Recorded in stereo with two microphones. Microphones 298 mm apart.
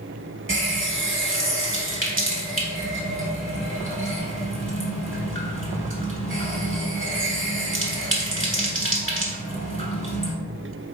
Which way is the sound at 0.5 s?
40° right (ahead or behind).